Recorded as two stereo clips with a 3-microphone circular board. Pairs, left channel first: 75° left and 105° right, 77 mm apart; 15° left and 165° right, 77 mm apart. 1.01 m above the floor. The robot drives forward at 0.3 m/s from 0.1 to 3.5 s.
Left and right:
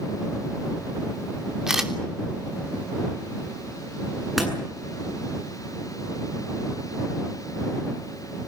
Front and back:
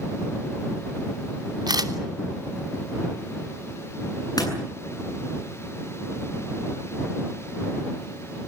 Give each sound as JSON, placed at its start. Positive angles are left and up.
{"t": 1.7, "sound": "a camera shutter", "azimuth_deg": 175, "distance_m": 3.0}
{"t": 4.4, "sound": "a door slam", "azimuth_deg": -15, "distance_m": 8.0}